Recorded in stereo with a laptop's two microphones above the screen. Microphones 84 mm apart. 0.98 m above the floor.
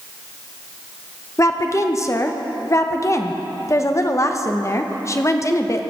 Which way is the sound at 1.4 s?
35° left (ahead or behind).